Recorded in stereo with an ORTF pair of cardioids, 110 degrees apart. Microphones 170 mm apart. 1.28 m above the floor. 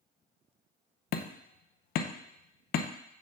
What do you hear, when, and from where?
1.1 s hammering: 65° left, 0.8 m